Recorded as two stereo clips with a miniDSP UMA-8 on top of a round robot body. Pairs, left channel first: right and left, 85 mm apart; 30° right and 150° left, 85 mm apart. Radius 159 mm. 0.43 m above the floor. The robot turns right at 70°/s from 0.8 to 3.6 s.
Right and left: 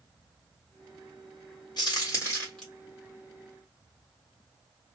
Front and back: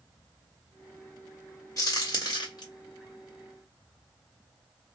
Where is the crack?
70° right, 1.9 m; by 2.6 s 5° right, 1.9 m.